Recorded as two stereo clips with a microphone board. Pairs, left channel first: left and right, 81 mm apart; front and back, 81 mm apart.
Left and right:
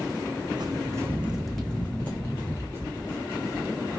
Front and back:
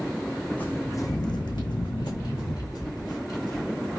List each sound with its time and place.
0.6 s footsteps: 70° right, 0.6 m; by 3.6 s 40° left, 2.0 m